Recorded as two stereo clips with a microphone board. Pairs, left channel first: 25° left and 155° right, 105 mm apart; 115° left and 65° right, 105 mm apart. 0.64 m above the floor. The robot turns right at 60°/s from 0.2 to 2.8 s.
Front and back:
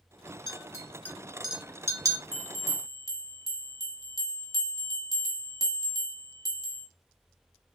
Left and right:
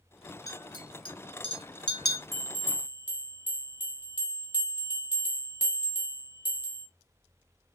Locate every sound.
0.5 s a clink: 60° left, 0.7 m; by 2.2 s 165° left, 0.7 m
2.3 s a bell: 35° right, 0.8 m; by 6.9 s 10° right, 0.8 m